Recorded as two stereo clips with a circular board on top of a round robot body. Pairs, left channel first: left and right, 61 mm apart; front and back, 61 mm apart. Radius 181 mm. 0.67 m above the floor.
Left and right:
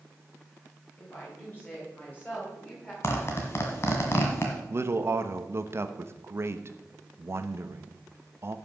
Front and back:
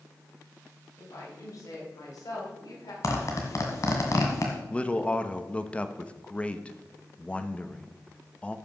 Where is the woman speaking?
35° left, 5.5 m; by 2.9 s 20° left, 4.5 m.